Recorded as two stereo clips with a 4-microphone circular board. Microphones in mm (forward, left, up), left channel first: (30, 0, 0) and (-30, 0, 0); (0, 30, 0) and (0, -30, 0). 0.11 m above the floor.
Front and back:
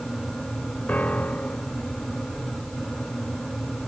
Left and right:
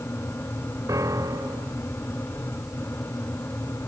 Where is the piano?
65° right.